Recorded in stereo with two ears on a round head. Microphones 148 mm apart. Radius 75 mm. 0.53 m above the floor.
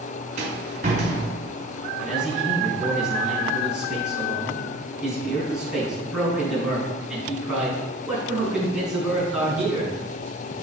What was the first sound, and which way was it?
A rattle, 45° right (ahead or behind).